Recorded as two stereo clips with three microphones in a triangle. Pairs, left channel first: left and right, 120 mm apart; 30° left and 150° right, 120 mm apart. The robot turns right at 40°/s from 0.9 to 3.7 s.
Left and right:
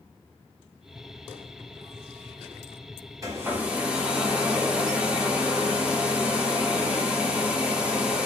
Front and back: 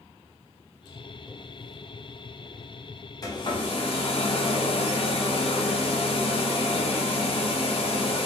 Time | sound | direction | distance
3.2 | a hair dryer | 30° right | 0.7 m